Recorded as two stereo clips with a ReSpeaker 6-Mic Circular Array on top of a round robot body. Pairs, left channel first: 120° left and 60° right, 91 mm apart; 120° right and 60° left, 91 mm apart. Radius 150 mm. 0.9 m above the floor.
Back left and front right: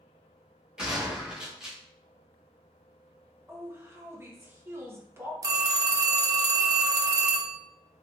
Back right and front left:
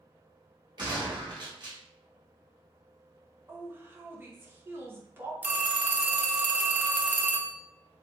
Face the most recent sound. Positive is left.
turn(degrees=-10)